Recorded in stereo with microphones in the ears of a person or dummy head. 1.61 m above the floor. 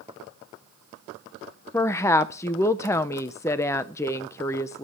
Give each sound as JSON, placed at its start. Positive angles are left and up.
{"t": 1.7, "sound": "a woman speaking", "side_deg": 15, "distance_m": 0.7}